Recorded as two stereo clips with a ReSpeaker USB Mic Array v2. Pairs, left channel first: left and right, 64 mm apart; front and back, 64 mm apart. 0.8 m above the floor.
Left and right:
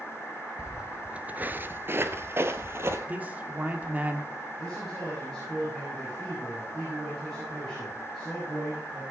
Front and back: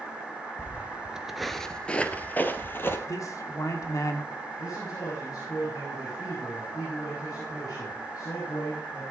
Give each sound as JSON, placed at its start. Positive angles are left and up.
{"t": 0.6, "sound": "footsteps", "azimuth_deg": -170, "distance_m": 0.9}
{"t": 3.1, "sound": "a man speaking", "azimuth_deg": -25, "distance_m": 1.8}
{"t": 4.6, "sound": "a man speaking", "azimuth_deg": 5, "distance_m": 5.5}